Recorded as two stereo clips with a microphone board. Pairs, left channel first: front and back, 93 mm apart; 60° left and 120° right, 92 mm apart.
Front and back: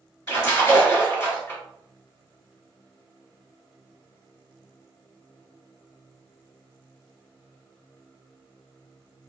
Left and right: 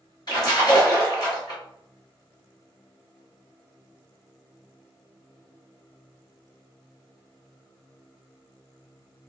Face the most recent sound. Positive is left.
turn(degrees=45)